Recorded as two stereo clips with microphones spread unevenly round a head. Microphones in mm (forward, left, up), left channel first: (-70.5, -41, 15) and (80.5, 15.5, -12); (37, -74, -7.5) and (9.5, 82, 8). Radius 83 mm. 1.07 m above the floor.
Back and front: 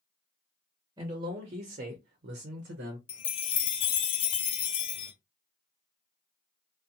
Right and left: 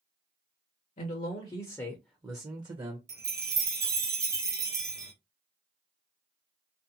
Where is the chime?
165° left, 0.6 m.